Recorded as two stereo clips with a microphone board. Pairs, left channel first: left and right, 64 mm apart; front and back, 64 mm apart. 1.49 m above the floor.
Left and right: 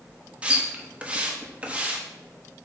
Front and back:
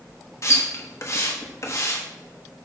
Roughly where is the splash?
Ahead right.